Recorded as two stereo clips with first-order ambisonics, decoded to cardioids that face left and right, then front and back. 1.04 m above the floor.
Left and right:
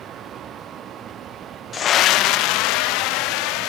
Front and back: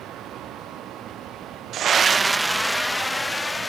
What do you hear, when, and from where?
1.7 s a scream: 150° left; by 3.7 s 80° left